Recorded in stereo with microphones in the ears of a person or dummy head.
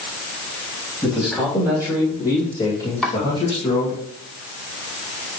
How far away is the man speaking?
About 3 m.